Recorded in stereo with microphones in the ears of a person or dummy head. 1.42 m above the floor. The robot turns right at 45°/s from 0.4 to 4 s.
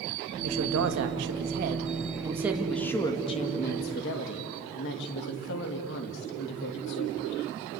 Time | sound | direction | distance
0.4 | a woman speaking | 100° right | 2.5 m